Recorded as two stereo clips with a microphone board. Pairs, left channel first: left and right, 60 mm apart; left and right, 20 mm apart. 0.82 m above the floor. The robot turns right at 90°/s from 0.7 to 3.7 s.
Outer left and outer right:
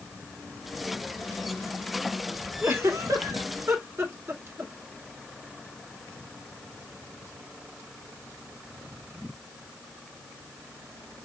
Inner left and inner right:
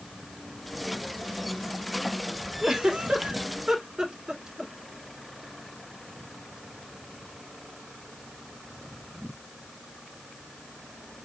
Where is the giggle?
35° right (ahead or behind), 1.4 m; by 4.7 s 40° right (ahead or behind), 1.4 m.